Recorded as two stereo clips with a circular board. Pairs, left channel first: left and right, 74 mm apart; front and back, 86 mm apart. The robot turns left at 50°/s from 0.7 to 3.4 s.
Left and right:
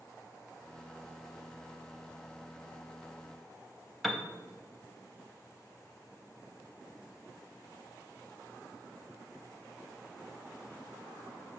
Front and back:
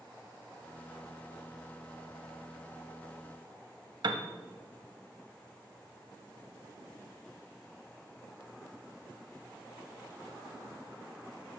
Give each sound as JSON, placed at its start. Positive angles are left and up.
{"t": 4.0, "sound": "a piano", "azimuth_deg": 180, "distance_m": 0.5}